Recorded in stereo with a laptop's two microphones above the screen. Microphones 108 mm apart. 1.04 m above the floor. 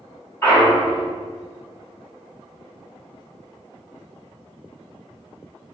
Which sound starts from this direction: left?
A clunk, at 0.4 s.